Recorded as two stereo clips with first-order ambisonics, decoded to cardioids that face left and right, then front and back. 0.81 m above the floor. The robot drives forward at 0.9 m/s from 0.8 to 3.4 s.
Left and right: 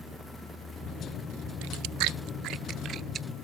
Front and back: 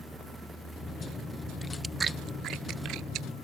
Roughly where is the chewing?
Right.